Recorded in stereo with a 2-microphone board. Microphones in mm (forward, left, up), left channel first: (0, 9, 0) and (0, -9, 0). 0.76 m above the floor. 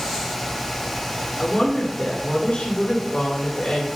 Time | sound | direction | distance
1.4 | a woman speaking | 70° left (ahead or behind) | 2.5 m